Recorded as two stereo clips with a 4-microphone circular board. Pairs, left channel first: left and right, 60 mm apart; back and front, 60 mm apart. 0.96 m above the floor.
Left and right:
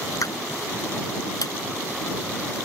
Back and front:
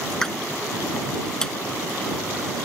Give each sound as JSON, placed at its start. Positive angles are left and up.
{"t": 0.1, "sound": "a pop", "azimuth_deg": 100}